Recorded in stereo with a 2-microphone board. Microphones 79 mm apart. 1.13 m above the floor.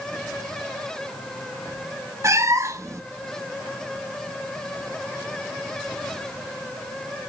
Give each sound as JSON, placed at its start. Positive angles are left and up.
{"t": 2.2, "sound": "a cat meowing", "side_deg": -40, "distance_m": 0.7}